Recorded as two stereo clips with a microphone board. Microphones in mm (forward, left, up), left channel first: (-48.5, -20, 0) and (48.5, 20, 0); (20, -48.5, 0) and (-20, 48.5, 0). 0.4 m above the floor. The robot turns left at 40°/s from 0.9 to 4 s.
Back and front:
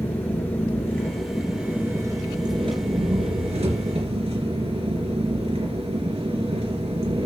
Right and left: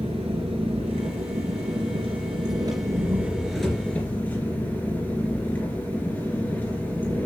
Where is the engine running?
130° left, 3 m; by 7.3 s 5° left, 3 m.